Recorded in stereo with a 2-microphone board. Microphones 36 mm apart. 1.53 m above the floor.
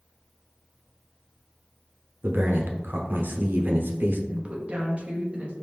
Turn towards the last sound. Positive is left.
turn(degrees=-40)  # may be behind; listen again after turning